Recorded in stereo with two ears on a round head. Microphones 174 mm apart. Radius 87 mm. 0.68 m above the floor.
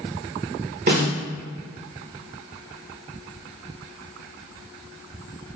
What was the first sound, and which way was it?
A snare drum, 50° right (ahead or behind).